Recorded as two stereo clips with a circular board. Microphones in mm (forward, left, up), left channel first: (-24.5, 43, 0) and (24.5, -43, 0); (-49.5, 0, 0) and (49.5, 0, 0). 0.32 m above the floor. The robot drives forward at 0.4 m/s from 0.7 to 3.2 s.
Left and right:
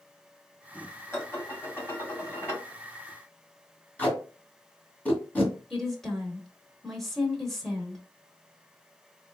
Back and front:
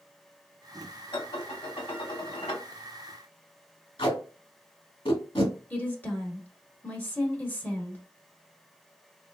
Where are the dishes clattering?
Straight behind, 1.3 m.